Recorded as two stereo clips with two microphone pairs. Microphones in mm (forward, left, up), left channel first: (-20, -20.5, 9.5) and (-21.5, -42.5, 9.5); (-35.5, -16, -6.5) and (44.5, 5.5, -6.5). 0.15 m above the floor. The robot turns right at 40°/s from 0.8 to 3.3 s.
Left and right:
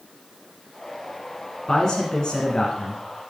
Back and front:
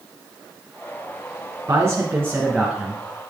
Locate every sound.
1.7 s a man speaking: 40° left, 1.9 m; by 3.0 s 95° left, 1.9 m